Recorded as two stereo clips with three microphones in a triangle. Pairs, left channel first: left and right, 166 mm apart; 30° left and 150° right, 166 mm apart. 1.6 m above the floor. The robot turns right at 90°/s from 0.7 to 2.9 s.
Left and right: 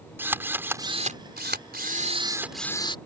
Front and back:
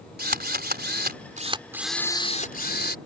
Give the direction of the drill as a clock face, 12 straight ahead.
6 o'clock.